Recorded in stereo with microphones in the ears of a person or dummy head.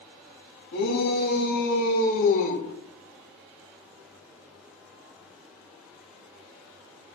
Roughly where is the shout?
Left.